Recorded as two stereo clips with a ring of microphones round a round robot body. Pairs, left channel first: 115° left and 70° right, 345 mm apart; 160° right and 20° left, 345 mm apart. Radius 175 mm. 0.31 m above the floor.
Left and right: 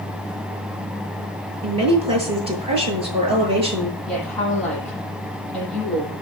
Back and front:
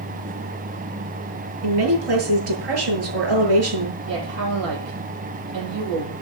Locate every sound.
1.6 s a woman speaking: 5° left, 8 m
4.1 s a woman speaking: 25° left, 9 m